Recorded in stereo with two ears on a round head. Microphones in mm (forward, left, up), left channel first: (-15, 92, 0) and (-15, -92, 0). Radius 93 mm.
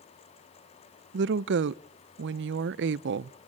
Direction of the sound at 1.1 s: 60° right (ahead or behind).